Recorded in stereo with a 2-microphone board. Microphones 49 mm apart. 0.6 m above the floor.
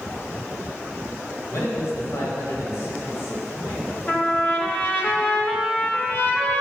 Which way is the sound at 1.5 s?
70° left (ahead or behind).